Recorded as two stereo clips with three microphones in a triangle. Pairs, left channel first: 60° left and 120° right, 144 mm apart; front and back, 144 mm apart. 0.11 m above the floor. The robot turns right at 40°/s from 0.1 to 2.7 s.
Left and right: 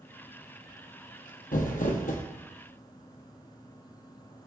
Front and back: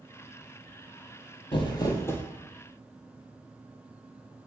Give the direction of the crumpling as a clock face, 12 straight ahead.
10 o'clock.